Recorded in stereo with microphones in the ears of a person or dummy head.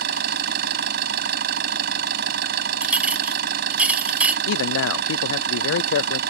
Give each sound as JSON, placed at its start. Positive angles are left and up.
{"t": 0.0, "sound": "an engine running", "side_deg": -55}
{"t": 2.8, "sound": "a clink", "side_deg": -5}
{"t": 4.5, "sound": "a man speaking", "side_deg": 75}